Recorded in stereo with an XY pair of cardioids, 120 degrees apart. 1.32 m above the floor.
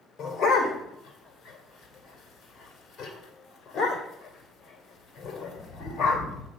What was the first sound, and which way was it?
A dog barking, 45° left.